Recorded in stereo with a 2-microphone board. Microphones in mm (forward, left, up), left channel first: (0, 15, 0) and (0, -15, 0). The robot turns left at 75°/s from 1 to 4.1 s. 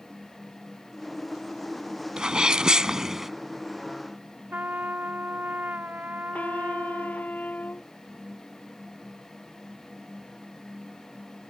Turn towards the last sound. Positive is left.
turn(degrees=60)  # may be behind; listen again after turning